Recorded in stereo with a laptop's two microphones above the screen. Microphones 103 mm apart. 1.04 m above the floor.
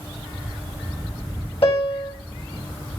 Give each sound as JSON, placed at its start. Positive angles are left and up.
{"t": 1.6, "sound": "a piano", "side_deg": 60, "distance_m": 3.5}